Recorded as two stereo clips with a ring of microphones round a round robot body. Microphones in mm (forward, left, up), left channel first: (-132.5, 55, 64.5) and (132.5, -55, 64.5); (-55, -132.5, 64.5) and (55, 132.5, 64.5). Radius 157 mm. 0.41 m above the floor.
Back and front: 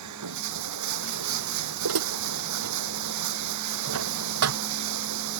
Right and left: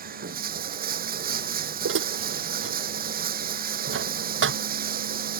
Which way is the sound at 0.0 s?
5° left.